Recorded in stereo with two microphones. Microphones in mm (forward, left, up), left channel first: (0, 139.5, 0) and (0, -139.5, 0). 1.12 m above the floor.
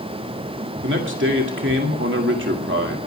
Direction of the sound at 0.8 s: 45° right (ahead or behind).